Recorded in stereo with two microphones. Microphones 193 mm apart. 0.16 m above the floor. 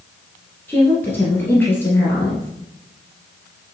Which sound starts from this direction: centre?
A woman speaking, at 0.7 s.